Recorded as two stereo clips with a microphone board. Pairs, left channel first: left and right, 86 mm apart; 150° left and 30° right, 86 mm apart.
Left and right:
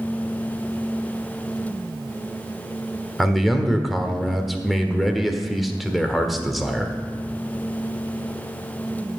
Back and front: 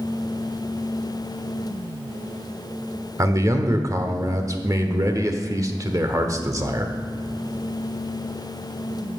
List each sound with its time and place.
3.2 s a man speaking: straight ahead, 1.3 m